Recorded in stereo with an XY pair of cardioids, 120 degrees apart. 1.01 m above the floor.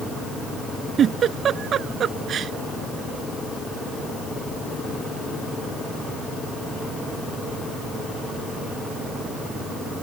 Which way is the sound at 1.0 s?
45° right.